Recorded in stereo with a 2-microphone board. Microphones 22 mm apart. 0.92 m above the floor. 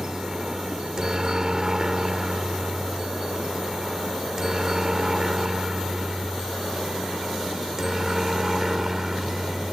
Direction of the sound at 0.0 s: 25° right (ahead or behind).